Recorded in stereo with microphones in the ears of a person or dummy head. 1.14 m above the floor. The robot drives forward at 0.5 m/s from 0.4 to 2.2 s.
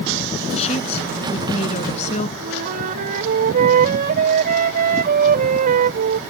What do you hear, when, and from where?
0.5 s a woman speaking: 35° left (ahead or behind)
2.4 s a flute: 45° right (ahead or behind)